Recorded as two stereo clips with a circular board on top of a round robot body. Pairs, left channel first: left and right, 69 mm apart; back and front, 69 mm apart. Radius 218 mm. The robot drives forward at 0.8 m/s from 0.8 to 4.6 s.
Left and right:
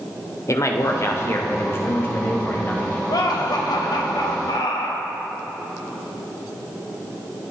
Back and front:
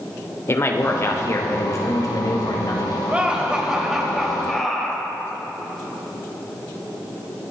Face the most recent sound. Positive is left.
turn(degrees=95)